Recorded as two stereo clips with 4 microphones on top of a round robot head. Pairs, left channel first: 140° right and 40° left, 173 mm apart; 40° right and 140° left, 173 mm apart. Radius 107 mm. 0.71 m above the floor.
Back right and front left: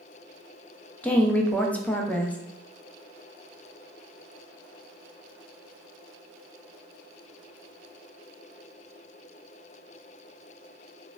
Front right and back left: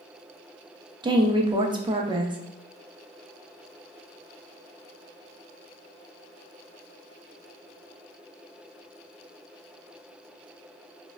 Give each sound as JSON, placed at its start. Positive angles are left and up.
{"t": 1.0, "sound": "a woman speaking", "azimuth_deg": 150, "distance_m": 0.5}